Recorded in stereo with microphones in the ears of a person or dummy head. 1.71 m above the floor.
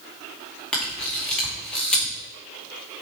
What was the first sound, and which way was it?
A camera shutter, 5° left (ahead or behind).